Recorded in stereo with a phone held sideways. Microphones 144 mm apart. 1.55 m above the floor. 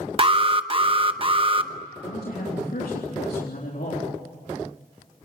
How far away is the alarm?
About 0.8 m.